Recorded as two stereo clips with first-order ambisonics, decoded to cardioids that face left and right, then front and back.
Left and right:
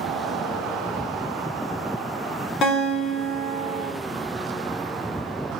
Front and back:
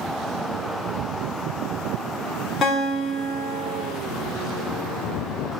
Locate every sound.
2.6 s a guitar: 55° left, 1.6 m